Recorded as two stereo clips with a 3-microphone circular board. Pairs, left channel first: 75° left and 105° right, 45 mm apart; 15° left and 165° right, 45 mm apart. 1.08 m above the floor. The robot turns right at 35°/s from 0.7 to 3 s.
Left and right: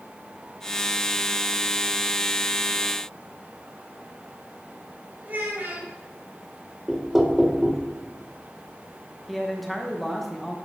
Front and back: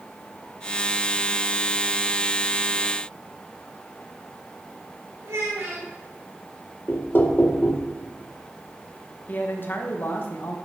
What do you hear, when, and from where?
5.2 s a child speaking: 160° right, 3.5 m
6.9 s knocking: 25° right, 0.7 m
9.3 s a man speaking: 15° right, 1.2 m